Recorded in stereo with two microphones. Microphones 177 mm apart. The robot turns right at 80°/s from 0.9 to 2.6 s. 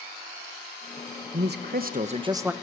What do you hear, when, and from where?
1.3 s a man speaking: 105° right, 1.0 m; by 2.5 s 10° right, 1.0 m